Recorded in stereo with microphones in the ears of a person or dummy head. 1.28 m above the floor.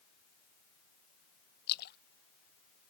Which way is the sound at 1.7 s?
55° left (ahead or behind).